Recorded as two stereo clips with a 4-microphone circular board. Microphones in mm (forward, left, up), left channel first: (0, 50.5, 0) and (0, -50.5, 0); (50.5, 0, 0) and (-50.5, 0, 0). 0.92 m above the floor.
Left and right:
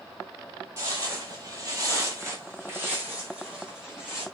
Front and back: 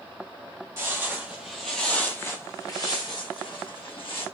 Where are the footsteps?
130° right, 1.3 m; by 4.2 s 10° right, 2 m.